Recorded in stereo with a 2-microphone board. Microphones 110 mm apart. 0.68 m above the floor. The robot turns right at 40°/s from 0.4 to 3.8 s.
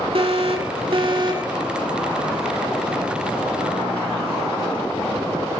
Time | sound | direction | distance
0.1 | an alarm | 90° right | 3 m